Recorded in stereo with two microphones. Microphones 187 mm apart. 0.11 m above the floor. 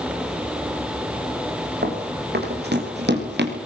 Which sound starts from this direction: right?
Running footsteps, at 1.8 s.